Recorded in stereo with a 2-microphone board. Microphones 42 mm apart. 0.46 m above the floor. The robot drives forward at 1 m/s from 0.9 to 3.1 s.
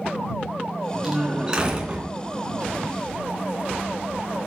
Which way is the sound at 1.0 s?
15° right (ahead or behind).